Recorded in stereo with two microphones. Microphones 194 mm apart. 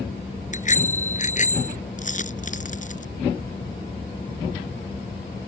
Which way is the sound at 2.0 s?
40° left (ahead or behind).